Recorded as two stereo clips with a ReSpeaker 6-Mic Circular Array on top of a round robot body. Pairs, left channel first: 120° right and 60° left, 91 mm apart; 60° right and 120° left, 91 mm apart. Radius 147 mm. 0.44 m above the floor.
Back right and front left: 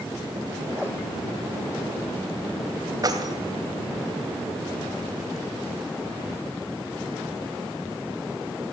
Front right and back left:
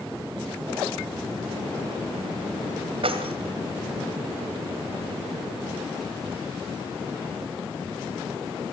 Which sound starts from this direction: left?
Keys jangling, at 3.0 s.